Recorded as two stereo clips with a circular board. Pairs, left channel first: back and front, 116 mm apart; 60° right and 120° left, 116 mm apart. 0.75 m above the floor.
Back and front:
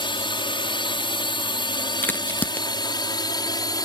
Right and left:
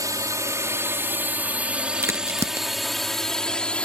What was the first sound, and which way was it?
A drone, 165° left.